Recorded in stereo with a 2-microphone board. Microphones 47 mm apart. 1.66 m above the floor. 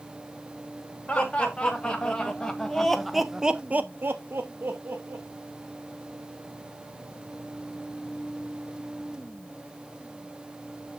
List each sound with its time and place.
1.1 s laughter: 20° left (ahead or behind), 3 m; by 5.3 s 45° right (ahead or behind), 1.6 m